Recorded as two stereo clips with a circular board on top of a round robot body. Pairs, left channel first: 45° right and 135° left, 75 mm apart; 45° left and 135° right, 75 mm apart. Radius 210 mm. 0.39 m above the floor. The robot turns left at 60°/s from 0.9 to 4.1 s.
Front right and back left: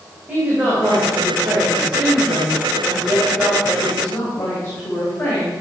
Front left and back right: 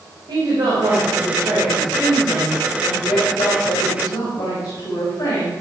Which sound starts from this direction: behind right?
A woman speaking, at 0.3 s.